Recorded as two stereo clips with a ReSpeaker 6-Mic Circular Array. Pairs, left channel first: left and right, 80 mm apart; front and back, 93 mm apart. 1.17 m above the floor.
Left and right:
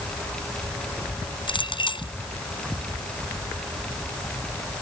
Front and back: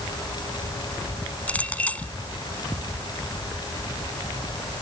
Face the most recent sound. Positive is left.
turn(degrees=75)